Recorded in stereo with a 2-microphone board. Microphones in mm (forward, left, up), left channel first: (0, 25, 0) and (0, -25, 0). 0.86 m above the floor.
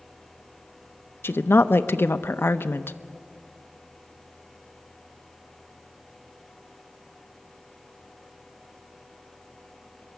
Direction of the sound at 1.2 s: 50° left (ahead or behind).